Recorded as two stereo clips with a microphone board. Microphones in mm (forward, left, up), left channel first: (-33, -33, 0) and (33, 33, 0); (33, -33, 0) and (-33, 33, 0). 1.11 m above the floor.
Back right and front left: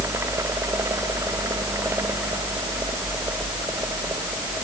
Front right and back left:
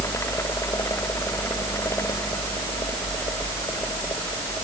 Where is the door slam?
I don't hear a door slam.